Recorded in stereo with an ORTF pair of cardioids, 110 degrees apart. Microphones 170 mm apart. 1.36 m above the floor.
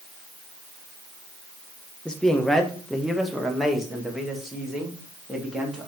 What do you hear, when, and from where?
2.0 s a man speaking: 5° left, 1.2 m; by 5.9 s 5° right, 3 m